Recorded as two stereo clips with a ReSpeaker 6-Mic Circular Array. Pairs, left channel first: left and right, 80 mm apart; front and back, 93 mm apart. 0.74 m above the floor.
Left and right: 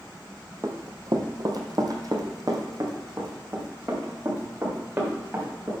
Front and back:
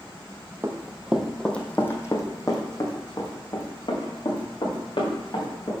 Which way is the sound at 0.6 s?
125° right.